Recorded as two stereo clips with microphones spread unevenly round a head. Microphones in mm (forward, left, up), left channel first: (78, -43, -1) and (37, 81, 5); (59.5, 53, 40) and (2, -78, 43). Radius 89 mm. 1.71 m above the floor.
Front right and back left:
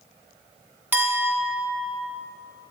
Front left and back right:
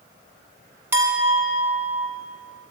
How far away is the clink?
About 0.8 m.